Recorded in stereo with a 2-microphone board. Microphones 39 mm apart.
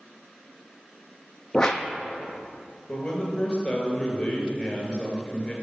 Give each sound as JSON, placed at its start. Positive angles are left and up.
{"t": 1.5, "sound": "a whoosh", "side_deg": 20, "distance_m": 0.7}
{"t": 2.9, "sound": "a man speaking", "side_deg": 25, "distance_m": 1.8}